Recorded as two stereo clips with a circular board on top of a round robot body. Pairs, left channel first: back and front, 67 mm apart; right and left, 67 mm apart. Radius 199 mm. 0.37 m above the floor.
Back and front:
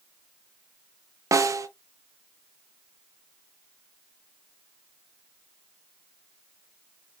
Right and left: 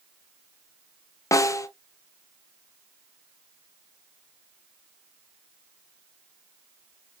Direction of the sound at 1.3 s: 45° right.